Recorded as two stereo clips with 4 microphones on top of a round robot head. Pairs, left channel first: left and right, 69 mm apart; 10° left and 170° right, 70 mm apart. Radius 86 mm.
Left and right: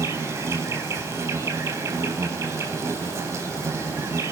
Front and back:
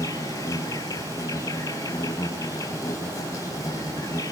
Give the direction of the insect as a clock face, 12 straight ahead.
1 o'clock.